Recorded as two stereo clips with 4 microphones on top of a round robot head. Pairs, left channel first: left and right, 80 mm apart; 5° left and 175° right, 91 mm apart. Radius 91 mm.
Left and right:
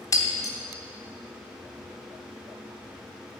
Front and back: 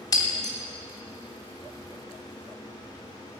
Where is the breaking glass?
45° left, 0.9 m.